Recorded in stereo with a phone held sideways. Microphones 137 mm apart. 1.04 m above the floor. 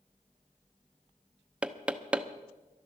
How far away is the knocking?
About 0.7 m.